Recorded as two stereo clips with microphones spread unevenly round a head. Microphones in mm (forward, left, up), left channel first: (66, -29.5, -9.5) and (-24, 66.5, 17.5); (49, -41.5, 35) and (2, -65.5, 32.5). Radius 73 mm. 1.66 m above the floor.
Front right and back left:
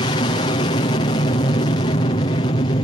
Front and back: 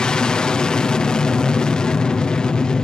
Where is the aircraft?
40° right.